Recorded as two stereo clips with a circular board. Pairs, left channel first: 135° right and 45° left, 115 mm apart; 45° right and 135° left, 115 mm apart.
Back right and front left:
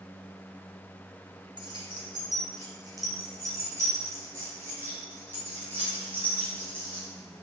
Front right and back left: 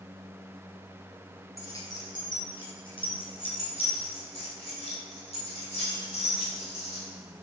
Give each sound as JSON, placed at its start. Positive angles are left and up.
{"t": 1.6, "sound": "keys jangling", "azimuth_deg": 10, "distance_m": 2.0}